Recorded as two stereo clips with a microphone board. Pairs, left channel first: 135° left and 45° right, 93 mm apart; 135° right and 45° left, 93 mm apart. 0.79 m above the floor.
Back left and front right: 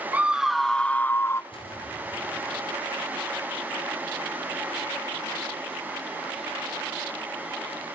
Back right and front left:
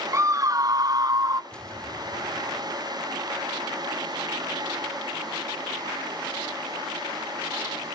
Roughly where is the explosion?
Behind left.